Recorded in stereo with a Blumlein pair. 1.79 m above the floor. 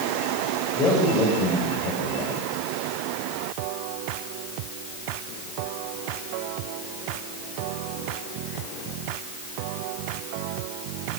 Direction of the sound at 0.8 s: 25° left.